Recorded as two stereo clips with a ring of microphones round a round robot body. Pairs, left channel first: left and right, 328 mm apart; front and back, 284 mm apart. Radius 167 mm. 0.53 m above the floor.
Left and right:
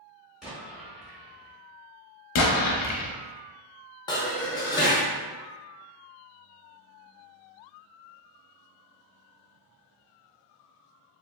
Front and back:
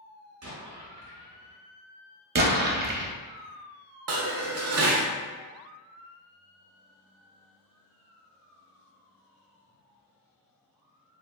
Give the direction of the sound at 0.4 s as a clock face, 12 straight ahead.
6 o'clock.